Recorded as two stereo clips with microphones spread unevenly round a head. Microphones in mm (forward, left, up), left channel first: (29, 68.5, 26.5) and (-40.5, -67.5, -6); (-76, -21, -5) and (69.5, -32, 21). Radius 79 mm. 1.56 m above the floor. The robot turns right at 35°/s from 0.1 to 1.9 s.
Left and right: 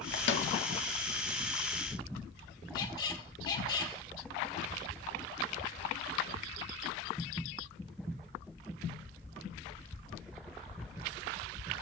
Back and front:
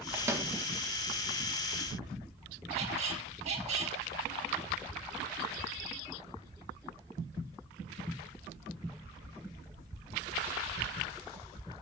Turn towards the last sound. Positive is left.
turn(degrees=15)